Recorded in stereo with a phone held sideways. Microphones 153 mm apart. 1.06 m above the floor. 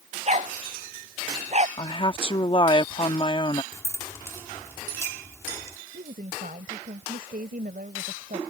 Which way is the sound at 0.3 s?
50° right (ahead or behind).